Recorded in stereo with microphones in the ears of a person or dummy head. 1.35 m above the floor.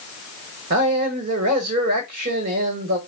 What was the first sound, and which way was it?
A man speaking, 50° right (ahead or behind).